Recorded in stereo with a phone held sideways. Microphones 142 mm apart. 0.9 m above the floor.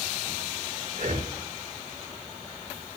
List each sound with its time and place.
0.9 s breathing: 65° right (ahead or behind), 1.9 m